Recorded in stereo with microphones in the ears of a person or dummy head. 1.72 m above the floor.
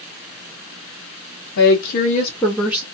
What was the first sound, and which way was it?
A woman speaking, 60° left (ahead or behind).